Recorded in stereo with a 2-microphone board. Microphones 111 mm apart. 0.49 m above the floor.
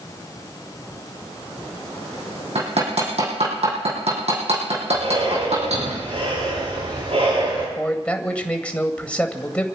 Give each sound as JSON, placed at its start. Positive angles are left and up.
{"t": 2.5, "sound": "hammering", "side_deg": -70, "distance_m": 7.0}
{"t": 4.9, "sound": "breathing", "side_deg": -65, "distance_m": 9.5}
{"t": 7.8, "sound": "a man speaking", "side_deg": 10, "distance_m": 2.0}